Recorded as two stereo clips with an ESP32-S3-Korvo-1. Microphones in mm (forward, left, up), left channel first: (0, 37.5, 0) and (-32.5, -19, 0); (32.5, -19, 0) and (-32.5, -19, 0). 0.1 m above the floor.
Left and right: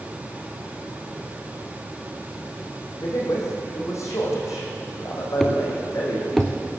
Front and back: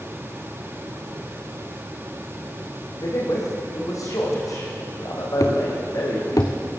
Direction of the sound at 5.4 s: 25° right.